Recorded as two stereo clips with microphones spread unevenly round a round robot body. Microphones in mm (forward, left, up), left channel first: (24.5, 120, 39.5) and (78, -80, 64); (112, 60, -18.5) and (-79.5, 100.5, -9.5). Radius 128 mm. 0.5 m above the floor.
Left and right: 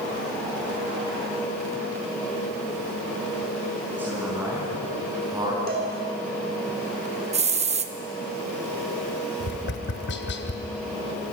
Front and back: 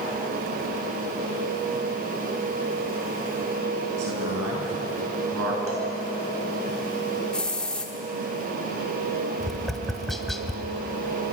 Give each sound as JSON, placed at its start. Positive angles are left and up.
{"t": 4.0, "sound": "a man speaking", "azimuth_deg": -160, "distance_m": 7.5}
{"t": 5.7, "sound": "a cowbell", "azimuth_deg": -125, "distance_m": 4.0}
{"t": 7.3, "sound": "a hiss", "azimuth_deg": -90, "distance_m": 1.4}
{"t": 9.4, "sound": "tapping", "azimuth_deg": 75, "distance_m": 1.8}